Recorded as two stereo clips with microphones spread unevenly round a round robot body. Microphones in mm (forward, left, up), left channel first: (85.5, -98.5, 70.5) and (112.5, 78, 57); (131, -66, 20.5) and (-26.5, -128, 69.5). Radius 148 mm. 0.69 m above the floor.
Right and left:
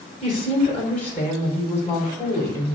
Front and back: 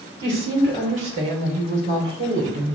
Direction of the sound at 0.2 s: 170° left.